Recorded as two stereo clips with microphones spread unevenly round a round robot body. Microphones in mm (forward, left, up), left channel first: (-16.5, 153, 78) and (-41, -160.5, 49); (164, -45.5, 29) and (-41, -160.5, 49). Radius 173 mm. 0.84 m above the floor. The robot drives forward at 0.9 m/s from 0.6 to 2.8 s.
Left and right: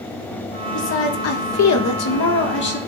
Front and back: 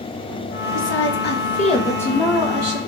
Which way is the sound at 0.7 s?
35° left.